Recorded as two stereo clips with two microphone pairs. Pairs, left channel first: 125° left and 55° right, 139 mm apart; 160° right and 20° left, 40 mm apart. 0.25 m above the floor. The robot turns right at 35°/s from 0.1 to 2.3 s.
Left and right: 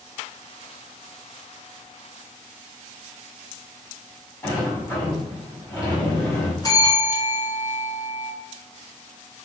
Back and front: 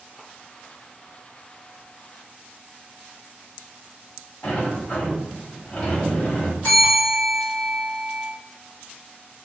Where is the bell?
170° left, 1.9 m.